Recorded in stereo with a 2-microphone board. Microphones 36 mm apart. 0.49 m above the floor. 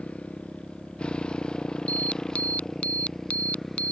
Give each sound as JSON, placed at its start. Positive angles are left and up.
{"t": 0.0, "sound": "a motorcycle", "side_deg": 40}
{"t": 1.9, "sound": "an alarm", "side_deg": 40}